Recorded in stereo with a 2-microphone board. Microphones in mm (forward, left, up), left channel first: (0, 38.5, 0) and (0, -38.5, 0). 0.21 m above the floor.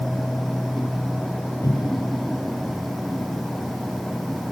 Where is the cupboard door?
45° left (ahead or behind), 3.5 m.